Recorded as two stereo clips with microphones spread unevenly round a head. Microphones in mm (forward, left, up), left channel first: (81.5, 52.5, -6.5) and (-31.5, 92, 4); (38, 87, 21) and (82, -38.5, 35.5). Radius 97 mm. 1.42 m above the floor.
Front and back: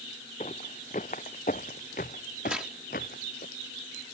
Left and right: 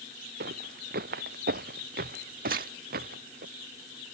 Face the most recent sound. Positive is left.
turn(degrees=-115)